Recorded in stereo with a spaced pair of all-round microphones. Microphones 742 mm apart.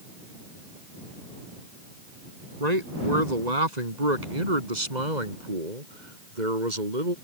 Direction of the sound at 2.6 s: 60° right (ahead or behind).